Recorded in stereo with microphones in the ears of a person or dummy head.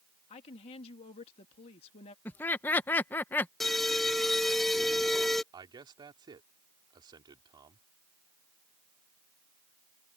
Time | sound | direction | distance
0.3 | a woman speaking | 35° left (ahead or behind) | ?
2.2 | laughter | 10° left (ahead or behind) | ?
3.6 | an alarm | centre (ahead or behind) | ?
5.5 | a man speaking | 20° right (ahead or behind) | ?